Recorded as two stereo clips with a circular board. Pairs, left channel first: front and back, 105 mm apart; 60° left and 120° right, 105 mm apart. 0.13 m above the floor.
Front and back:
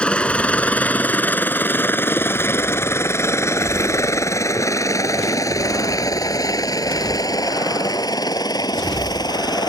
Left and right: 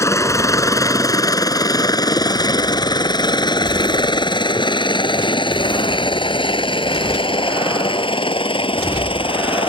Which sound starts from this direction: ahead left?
A helicopter, at 0.0 s.